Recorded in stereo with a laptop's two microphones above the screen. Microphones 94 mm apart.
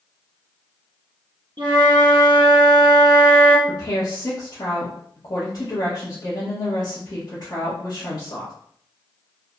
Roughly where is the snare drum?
No snare drum in this recording.